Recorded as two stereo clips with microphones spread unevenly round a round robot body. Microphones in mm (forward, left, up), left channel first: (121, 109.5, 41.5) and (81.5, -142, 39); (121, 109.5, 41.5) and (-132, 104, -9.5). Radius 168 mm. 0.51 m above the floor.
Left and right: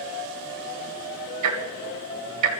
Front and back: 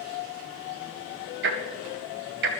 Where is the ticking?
125° right, 1.2 m.